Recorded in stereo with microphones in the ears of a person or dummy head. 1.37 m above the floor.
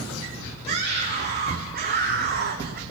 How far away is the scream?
About 3.5 m.